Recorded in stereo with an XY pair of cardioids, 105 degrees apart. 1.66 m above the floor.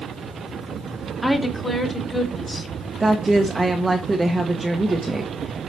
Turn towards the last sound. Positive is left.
turn(degrees=-15)